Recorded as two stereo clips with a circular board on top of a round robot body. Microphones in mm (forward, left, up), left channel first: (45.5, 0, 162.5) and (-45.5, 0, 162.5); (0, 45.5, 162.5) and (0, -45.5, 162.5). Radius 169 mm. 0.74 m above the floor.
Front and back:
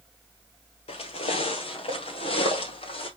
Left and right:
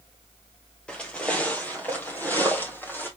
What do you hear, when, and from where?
0.9 s footsteps: 10° left, 1.3 m; by 3.1 s 20° left, 2.5 m